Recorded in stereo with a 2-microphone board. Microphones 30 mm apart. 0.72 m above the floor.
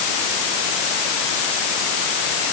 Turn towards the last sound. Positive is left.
No sound to turn to.